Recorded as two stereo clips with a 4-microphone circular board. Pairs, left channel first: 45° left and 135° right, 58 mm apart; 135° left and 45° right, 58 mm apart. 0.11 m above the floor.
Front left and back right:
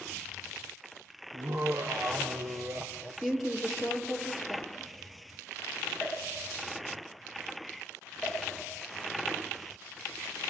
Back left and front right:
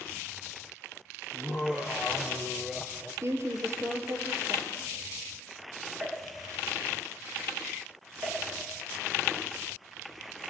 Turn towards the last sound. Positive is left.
turn(degrees=-45)